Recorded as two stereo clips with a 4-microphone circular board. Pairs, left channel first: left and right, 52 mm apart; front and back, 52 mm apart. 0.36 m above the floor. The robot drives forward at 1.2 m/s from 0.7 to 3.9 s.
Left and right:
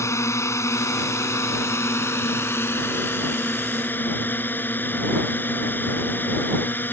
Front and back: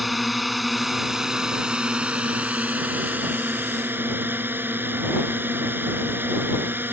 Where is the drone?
90° left; by 6.9 s 135° left.